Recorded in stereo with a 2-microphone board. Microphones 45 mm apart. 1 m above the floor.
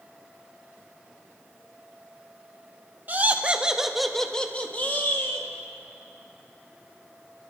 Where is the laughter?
40° right (ahead or behind), 1.1 m; by 5.5 s 50° left (ahead or behind), 1.5 m.